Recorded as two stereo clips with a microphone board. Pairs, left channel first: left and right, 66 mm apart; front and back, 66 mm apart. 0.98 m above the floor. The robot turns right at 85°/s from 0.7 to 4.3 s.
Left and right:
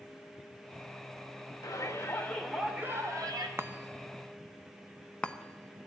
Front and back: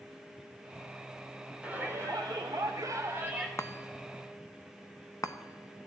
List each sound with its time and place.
1.6 s a shout: 105° left, 3 m; by 3.5 s 95° right, 3 m
3.6 s a chime: 40° right, 0.9 m; by 5.9 s 20° left, 0.9 m